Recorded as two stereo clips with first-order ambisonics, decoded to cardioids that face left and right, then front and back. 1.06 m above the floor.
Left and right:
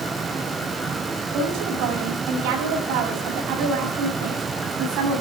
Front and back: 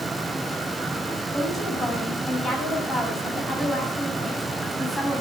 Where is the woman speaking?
75° right, 7.5 m.